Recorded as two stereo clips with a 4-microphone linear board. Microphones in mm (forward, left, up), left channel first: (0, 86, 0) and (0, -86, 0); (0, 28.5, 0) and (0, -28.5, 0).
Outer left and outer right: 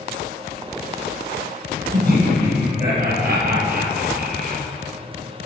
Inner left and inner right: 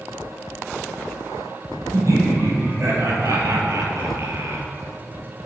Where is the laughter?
65° right (ahead or behind), 3 m; by 4.6 s 55° right (ahead or behind), 1.8 m.